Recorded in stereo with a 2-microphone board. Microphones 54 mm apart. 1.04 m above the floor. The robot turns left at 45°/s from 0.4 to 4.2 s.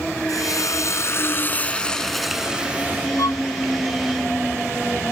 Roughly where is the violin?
Left.